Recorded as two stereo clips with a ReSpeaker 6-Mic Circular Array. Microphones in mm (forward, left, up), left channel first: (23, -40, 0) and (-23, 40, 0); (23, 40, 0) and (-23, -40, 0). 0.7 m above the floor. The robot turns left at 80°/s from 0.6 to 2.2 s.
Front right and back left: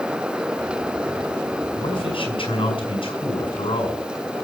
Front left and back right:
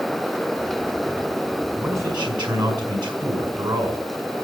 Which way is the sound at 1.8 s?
45° right.